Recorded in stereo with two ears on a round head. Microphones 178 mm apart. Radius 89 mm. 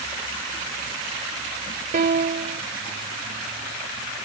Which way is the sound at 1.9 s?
45° right (ahead or behind).